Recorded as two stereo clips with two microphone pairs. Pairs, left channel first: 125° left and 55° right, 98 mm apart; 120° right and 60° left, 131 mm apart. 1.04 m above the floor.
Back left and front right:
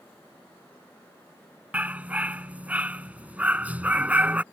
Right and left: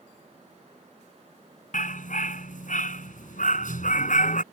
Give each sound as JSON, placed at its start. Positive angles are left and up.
{"t": 1.7, "sound": "a dog barking", "azimuth_deg": -130}